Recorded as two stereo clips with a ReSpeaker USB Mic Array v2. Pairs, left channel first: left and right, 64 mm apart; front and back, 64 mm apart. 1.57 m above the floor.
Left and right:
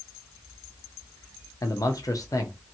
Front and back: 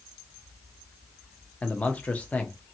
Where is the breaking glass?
No breaking glass in this recording.